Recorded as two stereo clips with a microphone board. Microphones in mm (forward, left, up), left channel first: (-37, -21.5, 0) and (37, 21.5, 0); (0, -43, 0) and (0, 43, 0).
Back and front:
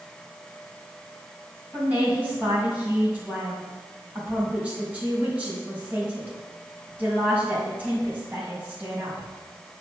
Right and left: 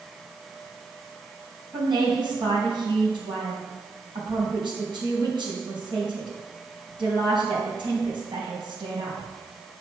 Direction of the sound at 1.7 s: 100° left.